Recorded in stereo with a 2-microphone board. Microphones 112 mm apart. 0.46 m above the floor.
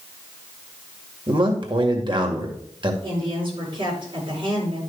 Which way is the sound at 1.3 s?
40° right (ahead or behind).